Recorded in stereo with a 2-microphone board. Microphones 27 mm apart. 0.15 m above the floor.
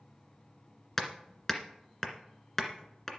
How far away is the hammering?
About 1.8 m.